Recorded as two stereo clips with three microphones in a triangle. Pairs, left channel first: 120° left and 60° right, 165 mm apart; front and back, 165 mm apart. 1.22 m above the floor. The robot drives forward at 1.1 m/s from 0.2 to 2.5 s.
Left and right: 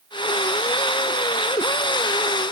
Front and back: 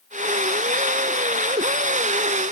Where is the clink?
I don't hear a clink.